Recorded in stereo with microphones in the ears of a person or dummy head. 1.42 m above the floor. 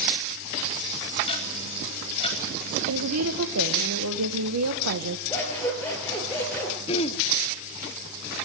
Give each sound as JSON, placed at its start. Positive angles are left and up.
{"t": 1.3, "sound": "ticking", "side_deg": 30, "distance_m": 4.0}
{"t": 2.9, "sound": "a woman speaking", "side_deg": -85, "distance_m": 1.3}
{"t": 5.3, "sound": "scissors", "side_deg": 10, "distance_m": 7.5}
{"t": 6.9, "sound": "throat clearing", "side_deg": 35, "distance_m": 0.7}